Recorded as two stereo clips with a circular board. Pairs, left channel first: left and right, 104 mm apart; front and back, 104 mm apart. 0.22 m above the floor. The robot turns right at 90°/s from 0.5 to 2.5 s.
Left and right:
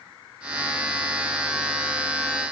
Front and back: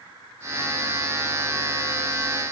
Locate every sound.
Only background noise.